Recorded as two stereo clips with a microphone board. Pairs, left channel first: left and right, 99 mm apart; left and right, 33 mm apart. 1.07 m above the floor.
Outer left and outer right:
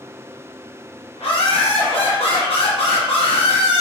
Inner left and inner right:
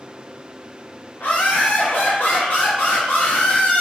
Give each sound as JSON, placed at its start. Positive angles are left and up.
{"t": 1.2, "sound": "laughter", "side_deg": 75, "distance_m": 0.8}